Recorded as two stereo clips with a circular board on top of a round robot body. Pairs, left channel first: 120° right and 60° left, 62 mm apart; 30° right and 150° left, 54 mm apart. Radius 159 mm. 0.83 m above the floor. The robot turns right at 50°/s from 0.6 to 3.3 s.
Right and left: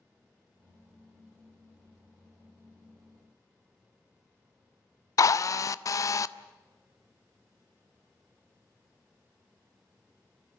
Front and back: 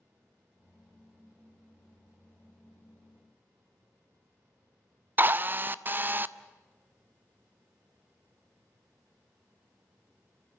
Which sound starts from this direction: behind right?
A drill, at 5.2 s.